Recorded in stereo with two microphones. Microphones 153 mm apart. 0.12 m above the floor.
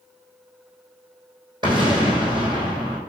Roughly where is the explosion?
Right.